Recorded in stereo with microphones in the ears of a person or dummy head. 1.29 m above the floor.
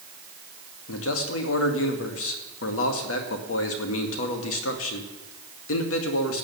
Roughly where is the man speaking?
Left.